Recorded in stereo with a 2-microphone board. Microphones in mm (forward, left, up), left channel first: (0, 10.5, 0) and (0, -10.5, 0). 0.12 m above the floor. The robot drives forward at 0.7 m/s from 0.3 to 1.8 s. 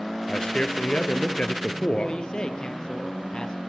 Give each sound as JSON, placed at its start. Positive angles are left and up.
{"t": 0.3, "sound": "a man speaking", "side_deg": 45, "distance_m": 3.0}
{"t": 2.0, "sound": "a man speaking", "side_deg": 40, "distance_m": 3.5}